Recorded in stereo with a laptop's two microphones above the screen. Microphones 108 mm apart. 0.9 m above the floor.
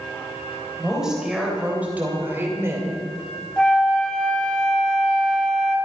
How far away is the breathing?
No breathing in this recording.